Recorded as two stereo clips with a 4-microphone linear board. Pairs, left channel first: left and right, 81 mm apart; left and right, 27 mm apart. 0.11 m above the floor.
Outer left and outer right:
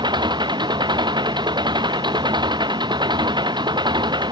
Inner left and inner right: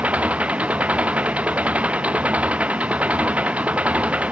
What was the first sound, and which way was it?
An engine running, 70° right (ahead or behind).